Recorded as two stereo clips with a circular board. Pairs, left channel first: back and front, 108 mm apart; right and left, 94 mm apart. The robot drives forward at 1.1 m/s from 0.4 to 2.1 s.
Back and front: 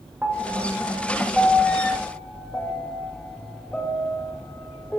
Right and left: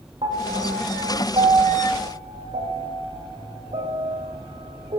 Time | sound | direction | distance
0.2 | a piano | 75° left | 5 m